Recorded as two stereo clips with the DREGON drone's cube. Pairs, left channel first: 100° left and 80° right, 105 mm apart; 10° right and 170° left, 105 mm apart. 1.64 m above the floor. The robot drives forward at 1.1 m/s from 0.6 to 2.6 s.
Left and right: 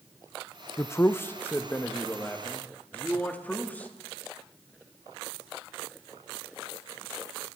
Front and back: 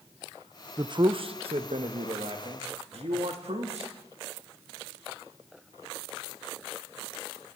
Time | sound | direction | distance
0.8 | a man speaking | 150° left | 0.7 m